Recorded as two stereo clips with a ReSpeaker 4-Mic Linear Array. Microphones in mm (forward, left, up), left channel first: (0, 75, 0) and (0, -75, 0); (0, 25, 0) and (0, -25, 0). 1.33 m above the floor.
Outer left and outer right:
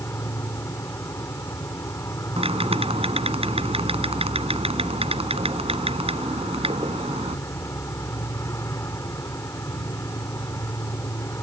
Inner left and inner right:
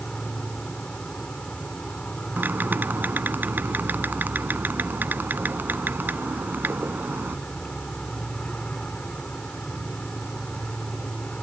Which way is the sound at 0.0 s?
20° left (ahead or behind).